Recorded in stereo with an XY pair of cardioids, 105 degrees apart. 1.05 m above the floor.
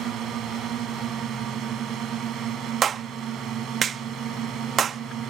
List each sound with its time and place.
0.0 s a drone: 70° right
2.8 s a clap: 50° right